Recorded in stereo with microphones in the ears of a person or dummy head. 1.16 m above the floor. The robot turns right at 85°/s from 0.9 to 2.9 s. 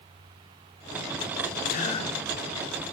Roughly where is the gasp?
Behind left.